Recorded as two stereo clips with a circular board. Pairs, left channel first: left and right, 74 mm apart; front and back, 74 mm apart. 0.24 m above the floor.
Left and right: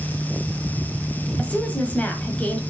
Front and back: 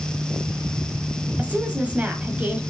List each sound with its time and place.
1.4 s a woman speaking: 135° left, 1.4 m